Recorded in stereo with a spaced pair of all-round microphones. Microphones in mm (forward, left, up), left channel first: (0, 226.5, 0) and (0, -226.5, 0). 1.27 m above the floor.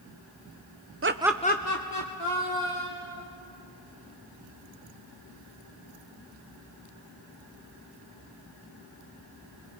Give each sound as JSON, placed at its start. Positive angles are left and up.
{"t": 1.0, "sound": "laughter", "side_deg": -30, "distance_m": 0.6}